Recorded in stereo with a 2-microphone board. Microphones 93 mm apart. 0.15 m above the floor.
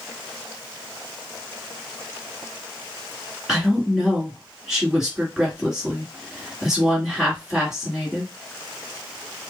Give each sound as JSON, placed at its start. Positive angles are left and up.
{"t": 3.5, "sound": "a woman speaking", "side_deg": -5, "distance_m": 1.8}